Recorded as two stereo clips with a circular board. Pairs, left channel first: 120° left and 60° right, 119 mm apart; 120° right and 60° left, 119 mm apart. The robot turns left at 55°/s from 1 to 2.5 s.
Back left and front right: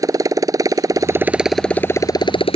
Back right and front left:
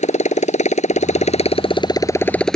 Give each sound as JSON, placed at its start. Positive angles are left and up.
{"t": 0.0, "sound": "a motorcycle", "azimuth_deg": -120}